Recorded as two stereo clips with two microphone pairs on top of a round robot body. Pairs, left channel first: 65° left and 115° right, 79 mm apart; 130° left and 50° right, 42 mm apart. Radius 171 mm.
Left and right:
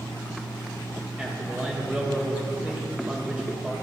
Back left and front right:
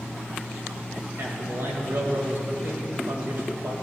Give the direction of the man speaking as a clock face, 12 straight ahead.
1 o'clock.